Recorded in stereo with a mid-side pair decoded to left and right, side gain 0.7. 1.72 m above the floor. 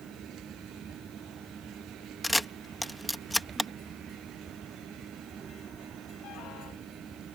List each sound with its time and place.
0.0 s a fan: 20° right
2.2 s a camera shutter: 5° left